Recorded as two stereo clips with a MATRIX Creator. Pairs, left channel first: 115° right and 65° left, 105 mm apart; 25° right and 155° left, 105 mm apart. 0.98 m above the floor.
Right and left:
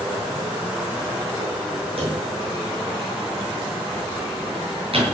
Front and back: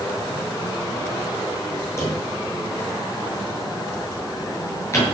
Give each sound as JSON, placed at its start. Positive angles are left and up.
{"t": 2.0, "sound": "a drawer", "azimuth_deg": 40, "distance_m": 8.0}